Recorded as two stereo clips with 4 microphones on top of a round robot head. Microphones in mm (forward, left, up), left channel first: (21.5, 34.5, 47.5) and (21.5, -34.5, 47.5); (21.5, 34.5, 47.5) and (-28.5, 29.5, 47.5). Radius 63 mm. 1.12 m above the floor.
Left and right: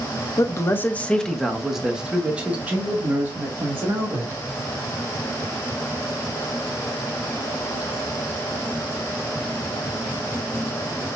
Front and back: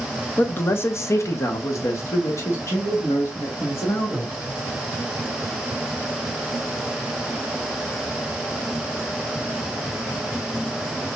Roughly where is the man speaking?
Ahead left.